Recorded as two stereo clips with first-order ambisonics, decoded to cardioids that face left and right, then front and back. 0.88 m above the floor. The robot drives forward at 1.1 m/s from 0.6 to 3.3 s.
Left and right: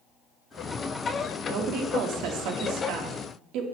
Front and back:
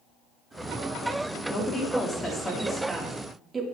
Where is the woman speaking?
60° right, 2.5 m; by 3.6 s 110° right, 2.5 m.